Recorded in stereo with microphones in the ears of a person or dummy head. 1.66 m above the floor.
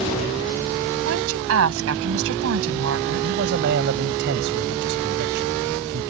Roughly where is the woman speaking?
Right.